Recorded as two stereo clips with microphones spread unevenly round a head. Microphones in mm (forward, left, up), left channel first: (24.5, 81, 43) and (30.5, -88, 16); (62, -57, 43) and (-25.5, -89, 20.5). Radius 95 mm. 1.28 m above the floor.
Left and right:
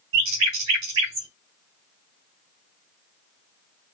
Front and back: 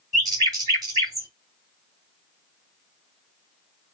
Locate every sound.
0.1 s a bird: 110° right, 2.5 m